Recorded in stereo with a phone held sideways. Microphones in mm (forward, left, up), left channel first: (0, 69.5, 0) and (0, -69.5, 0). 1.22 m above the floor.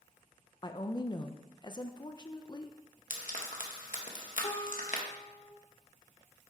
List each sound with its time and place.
0.6 s a woman speaking: 30° left (ahead or behind), 0.5 m
3.1 s frying: 70° left (ahead or behind), 1.3 m
4.4 s a guitar: 45° left (ahead or behind), 1.5 m